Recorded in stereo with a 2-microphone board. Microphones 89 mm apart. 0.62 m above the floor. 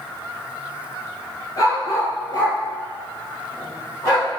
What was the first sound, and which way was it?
A dog barking, 40° left (ahead or behind).